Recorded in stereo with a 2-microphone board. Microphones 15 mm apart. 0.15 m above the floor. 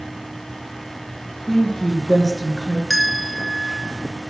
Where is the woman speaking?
20° left (ahead or behind), 2.0 m.